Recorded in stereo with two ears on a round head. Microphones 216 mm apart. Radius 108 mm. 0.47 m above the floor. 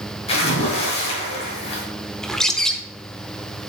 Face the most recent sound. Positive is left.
turn(degrees=0)  # may be behind; listen again after turning